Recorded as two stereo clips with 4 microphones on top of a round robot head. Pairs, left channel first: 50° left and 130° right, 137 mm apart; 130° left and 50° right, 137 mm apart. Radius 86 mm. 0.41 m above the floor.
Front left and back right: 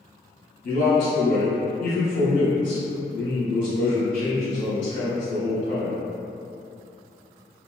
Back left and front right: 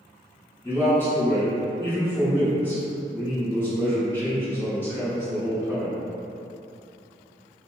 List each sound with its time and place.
0.6 s a man speaking: 55° left, 2.0 m